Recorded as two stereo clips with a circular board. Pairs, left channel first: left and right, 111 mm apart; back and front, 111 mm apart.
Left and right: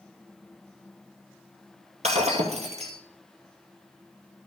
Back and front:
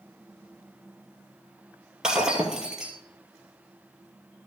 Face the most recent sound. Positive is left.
turn(degrees=-85)